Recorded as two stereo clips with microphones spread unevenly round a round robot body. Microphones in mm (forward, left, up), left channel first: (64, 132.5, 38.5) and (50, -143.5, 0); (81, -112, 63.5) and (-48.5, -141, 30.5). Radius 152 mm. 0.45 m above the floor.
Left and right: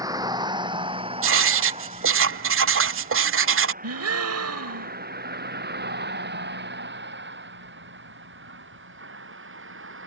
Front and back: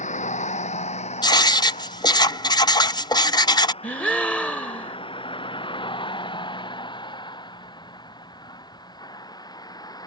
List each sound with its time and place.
0.0 s a vehicle: 15° right; by 10.1 s 50° right
1.2 s writing: 55° right
3.8 s a gasp: 75° right